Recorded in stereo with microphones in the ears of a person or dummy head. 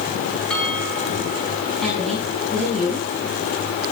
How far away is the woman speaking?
About 6.5 m.